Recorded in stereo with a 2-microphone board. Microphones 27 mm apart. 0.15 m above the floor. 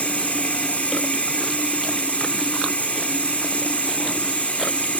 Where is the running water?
85° left, 2 m.